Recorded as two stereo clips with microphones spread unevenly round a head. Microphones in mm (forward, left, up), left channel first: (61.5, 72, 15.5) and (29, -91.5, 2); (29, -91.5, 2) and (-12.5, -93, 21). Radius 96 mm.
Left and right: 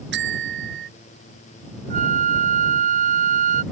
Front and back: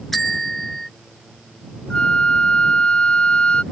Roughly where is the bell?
Right.